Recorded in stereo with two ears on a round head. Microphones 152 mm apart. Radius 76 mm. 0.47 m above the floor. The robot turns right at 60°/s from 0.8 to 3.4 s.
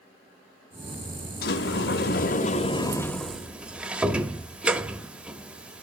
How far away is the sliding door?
About 1.1 m.